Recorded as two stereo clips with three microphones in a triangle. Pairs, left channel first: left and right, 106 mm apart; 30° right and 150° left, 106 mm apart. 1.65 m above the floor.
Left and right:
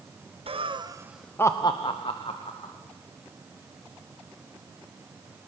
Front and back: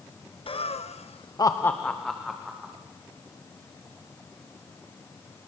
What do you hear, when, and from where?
0.5 s laughter: 60° right, 1.3 m; by 2.7 s 65° left, 2.5 m